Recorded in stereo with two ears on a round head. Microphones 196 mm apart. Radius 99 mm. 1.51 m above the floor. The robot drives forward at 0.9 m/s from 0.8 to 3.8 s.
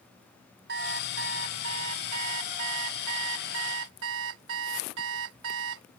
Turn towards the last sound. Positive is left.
turn(degrees=-70)  # may be behind; listen again after turning